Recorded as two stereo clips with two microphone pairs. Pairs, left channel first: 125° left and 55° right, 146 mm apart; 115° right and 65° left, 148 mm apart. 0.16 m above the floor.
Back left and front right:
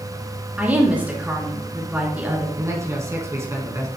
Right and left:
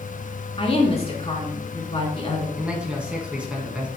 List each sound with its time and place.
0.6 s a woman speaking: 130° right, 2 m
2.6 s a man speaking: 10° right, 1.6 m